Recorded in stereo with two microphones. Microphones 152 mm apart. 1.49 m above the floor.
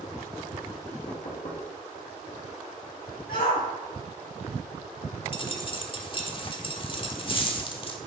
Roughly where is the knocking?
Left.